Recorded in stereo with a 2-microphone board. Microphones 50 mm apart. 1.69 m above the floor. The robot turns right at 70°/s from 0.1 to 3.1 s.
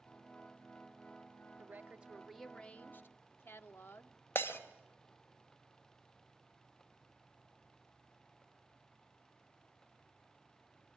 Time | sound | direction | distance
1.6 | a woman speaking | 55° right | 1.1 m
4.3 | breaking glass | 50° left (ahead or behind) | 2.5 m